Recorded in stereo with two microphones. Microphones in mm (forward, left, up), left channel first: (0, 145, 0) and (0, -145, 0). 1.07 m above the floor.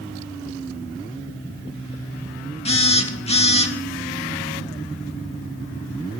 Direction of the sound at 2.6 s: 20° left (ahead or behind).